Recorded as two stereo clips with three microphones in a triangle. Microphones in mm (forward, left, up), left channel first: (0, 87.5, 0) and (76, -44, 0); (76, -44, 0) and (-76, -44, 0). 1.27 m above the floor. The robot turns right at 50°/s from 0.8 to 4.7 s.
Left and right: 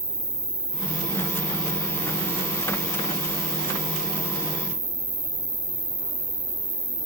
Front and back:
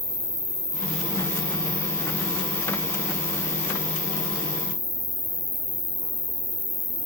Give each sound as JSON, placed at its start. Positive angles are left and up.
{"t": 0.0, "sound": "an insect", "azimuth_deg": 40, "distance_m": 1.1}